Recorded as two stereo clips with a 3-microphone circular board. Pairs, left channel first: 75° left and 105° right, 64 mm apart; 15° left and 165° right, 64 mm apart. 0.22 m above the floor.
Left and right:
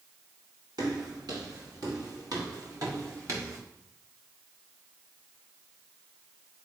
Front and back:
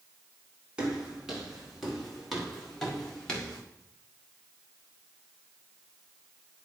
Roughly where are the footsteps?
Right.